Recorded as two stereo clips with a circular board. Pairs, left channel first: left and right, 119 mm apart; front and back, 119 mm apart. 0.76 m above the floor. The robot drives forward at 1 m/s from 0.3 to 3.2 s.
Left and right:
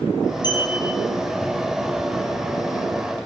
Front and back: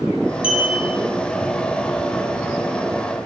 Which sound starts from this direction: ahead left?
A clink, at 0.4 s.